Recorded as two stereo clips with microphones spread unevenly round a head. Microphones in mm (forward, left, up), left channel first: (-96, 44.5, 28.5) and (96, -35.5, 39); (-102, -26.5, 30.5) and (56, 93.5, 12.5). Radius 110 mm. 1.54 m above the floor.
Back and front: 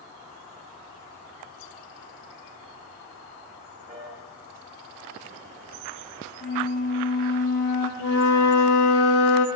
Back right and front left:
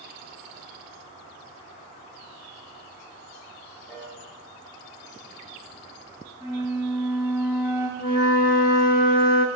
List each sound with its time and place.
3.9 s a piano: 60° right, 3.5 m
6.4 s a flute: 115° left, 2.5 m
8.0 s a flute: 175° right, 0.7 m